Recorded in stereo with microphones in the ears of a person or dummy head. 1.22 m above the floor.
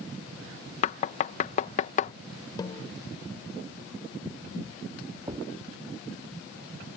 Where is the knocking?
35° left (ahead or behind).